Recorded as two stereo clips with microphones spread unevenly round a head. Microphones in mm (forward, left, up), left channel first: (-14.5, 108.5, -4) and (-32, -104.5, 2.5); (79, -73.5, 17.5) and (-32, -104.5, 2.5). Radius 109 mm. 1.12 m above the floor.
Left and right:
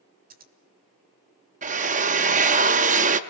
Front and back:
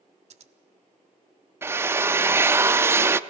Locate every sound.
0.3 s scissors: 140° right, 1.3 m
1.6 s a drill: 100° right, 0.6 m